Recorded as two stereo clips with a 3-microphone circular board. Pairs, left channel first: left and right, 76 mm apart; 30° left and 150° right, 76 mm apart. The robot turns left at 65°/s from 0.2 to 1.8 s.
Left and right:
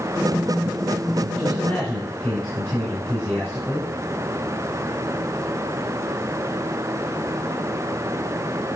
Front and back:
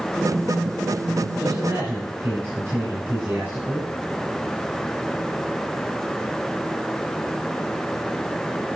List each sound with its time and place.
1.4 s a man speaking: 150° right, 3 m; by 3.9 s straight behind, 3 m